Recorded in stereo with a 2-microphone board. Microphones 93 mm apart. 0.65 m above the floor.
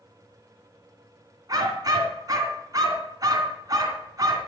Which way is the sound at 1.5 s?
45° right (ahead or behind).